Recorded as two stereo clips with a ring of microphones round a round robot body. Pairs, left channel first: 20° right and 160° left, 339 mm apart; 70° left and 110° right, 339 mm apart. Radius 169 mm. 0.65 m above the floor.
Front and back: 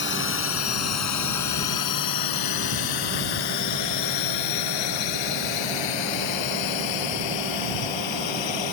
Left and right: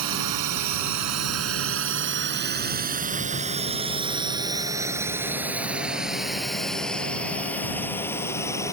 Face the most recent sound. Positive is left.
turn(degrees=-15)